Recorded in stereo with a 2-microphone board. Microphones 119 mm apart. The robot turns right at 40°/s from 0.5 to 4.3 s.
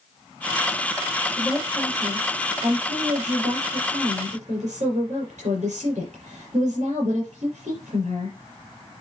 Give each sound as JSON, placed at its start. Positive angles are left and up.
{"t": 1.4, "sound": "a woman speaking", "azimuth_deg": 180, "distance_m": 6.0}